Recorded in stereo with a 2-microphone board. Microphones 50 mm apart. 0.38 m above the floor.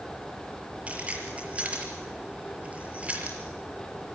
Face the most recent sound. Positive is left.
turn(degrees=-25)  # may be behind; listen again after turning